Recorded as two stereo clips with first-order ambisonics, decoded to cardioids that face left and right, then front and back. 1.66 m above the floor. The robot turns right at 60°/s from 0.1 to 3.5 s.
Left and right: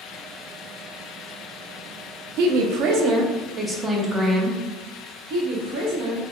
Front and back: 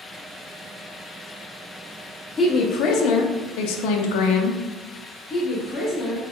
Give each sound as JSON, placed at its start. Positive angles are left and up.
{"t": 2.4, "sound": "a woman speaking", "azimuth_deg": -80, "distance_m": 0.5}
{"t": 5.3, "sound": "a woman speaking", "azimuth_deg": -70, "distance_m": 0.9}